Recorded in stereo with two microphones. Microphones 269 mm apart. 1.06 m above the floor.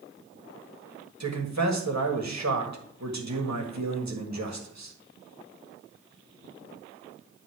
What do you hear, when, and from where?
1.2 s a man speaking: 70° right (ahead or behind), 1.7 m